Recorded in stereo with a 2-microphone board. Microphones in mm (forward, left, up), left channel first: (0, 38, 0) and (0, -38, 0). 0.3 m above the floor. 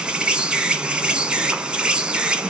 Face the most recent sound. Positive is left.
turn(degrees=-15)  # may be behind; listen again after turning